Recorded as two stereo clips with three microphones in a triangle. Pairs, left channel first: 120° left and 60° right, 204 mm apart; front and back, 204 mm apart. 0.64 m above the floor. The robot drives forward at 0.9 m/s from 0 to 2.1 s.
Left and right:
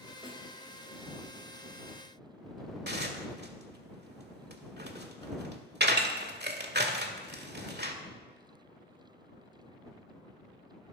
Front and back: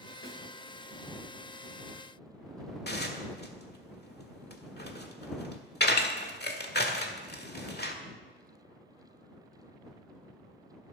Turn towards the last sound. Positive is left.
turn(degrees=-30)